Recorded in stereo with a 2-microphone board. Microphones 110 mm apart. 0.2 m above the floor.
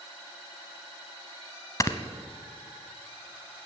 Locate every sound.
1.8 s snoring: 30° left (ahead or behind), 0.7 m